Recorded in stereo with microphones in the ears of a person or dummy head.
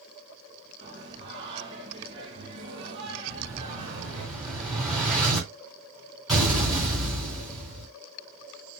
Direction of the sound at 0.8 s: 25° right (ahead or behind).